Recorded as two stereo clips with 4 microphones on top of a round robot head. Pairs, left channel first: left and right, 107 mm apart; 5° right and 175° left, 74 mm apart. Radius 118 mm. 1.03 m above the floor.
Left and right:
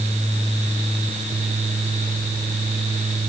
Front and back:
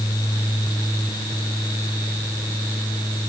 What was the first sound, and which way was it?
Only background noise.